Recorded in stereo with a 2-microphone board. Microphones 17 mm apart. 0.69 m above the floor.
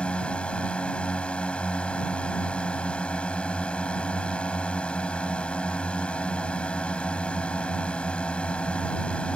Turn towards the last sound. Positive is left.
turn(degrees=70)  # may be behind; listen again after turning